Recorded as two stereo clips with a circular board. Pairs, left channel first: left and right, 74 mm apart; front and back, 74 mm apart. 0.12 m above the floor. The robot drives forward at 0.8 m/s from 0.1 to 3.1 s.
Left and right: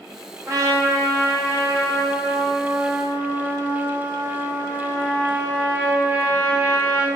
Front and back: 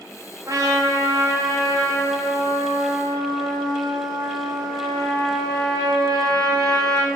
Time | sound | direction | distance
0.5 | a trumpet | 135° right | 5 m